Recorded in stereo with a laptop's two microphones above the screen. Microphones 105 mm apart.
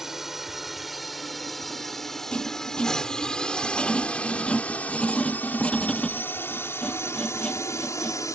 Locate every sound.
0.0 s a drone: 5° right (ahead or behind); by 8.4 s 30° left (ahead or behind)
2.3 s writing: 10° left (ahead or behind)